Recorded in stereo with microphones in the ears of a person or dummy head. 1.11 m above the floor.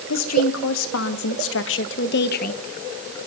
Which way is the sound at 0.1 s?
75° left (ahead or behind).